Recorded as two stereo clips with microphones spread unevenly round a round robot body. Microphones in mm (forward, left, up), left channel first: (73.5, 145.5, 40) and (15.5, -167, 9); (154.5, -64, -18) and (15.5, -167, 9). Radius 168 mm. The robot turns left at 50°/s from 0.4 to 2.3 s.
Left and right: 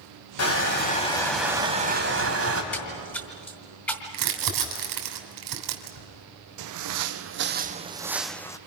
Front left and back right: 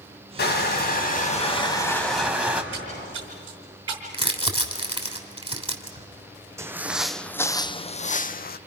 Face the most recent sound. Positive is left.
turn(degrees=0)